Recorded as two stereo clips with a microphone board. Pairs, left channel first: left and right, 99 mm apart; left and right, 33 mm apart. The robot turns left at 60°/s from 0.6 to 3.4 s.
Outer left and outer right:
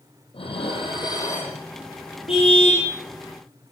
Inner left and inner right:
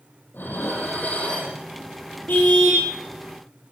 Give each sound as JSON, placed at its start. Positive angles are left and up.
{"t": 0.3, "sound": "dishes clattering", "azimuth_deg": 75, "distance_m": 6.5}
{"t": 2.3, "sound": "a car horn", "azimuth_deg": 90, "distance_m": 7.5}